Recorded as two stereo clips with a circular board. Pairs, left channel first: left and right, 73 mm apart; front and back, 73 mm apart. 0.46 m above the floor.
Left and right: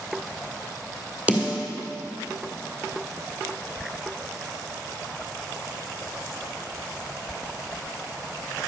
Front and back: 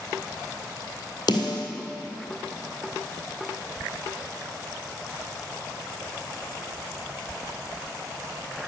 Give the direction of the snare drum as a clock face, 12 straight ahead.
1 o'clock.